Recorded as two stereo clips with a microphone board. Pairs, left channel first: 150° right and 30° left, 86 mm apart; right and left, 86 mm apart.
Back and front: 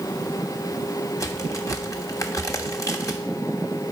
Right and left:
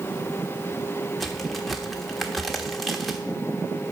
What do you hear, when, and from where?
1.2 s a crack: straight behind, 1.1 m